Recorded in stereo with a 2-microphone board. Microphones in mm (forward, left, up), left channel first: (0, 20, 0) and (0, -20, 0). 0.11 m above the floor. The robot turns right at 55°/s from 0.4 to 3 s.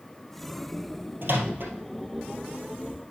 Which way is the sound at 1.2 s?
60° right (ahead or behind).